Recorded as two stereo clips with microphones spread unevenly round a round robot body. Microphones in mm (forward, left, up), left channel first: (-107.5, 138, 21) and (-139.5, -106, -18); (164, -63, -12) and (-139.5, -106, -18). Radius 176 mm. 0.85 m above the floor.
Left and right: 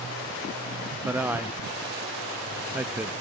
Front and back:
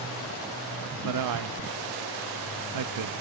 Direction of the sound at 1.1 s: 175° right.